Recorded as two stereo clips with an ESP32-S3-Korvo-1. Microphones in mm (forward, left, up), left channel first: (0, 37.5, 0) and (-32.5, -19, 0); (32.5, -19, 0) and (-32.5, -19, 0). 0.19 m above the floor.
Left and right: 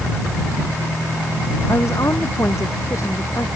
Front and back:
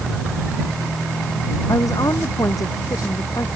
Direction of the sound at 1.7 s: 20° left.